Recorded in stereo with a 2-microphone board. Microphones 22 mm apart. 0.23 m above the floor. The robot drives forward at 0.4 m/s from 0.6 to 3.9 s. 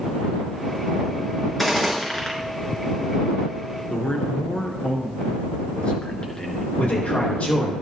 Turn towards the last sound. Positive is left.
turn(degrees=80)